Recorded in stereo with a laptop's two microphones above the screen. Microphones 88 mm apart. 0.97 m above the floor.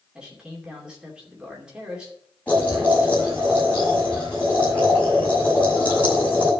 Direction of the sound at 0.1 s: 10° right (ahead or behind).